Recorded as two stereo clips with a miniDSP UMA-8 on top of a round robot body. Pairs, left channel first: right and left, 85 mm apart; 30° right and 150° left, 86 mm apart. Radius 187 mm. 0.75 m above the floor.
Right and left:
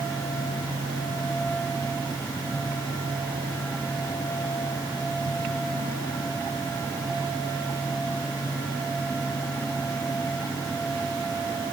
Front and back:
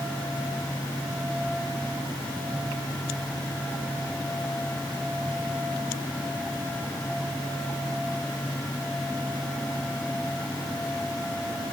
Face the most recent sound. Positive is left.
No sound to turn to.